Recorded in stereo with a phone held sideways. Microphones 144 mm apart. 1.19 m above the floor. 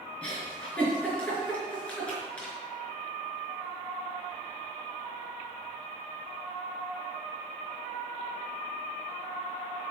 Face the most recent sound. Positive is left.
turn(degrees=10)  # may be behind; listen again after turning